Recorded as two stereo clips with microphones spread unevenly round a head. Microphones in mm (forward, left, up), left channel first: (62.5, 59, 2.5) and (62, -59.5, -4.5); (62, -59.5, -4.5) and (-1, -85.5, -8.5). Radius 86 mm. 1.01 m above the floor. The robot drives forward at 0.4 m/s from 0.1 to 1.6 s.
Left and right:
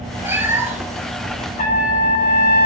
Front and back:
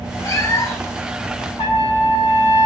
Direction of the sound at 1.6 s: 90° left.